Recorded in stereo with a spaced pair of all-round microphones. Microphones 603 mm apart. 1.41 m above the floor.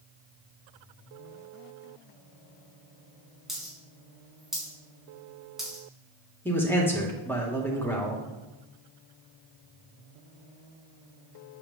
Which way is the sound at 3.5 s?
Centre (ahead or behind).